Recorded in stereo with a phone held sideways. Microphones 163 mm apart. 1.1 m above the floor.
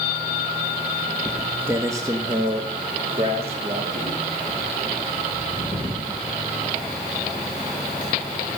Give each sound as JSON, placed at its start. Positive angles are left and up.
{"t": 1.2, "sound": "footsteps", "side_deg": 0, "distance_m": 1.3}